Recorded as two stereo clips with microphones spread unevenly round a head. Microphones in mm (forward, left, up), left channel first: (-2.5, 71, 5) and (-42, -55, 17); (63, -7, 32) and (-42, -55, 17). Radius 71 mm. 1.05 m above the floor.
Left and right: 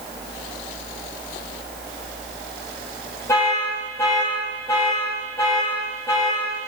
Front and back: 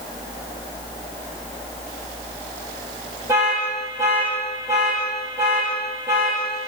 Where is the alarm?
135° left, 3.5 m.